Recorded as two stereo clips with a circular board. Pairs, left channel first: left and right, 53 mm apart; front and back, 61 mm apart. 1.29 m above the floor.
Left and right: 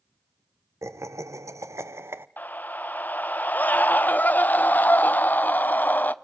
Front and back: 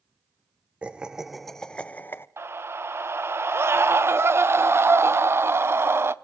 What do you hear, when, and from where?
0.8 s laughter: 110° right, 1.0 m; by 2.3 s 45° right, 0.8 m
2.4 s a scream: 140° left, 0.7 m